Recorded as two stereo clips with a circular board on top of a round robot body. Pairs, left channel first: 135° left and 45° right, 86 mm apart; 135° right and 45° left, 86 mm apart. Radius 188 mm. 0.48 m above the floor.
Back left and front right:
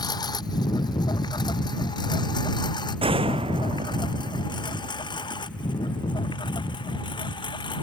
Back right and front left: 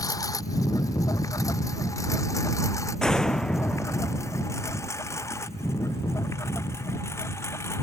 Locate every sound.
0.0 s a lawn mower: 175° left; by 7.8 s 165° left
3.0 s a gunshot: 50° right